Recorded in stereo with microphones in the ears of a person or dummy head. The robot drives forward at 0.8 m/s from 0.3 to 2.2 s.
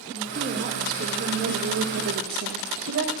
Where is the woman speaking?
40° right (ahead or behind), 2.5 m; by 3.1 s 70° right (ahead or behind), 1.7 m.